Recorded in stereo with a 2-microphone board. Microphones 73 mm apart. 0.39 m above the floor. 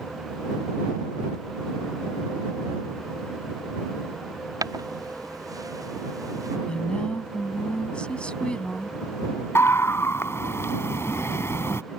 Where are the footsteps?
65° right (ahead or behind); by 6.6 s 60° right (ahead or behind).